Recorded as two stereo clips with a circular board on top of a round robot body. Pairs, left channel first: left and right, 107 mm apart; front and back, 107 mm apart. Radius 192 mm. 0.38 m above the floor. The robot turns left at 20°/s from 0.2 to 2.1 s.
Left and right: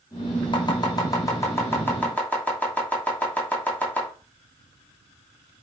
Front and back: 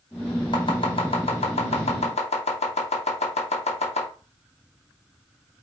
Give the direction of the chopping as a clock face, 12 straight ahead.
11 o'clock.